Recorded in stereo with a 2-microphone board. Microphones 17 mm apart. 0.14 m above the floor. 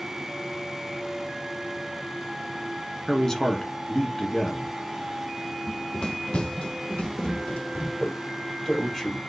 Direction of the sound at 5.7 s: 30° left (ahead or behind).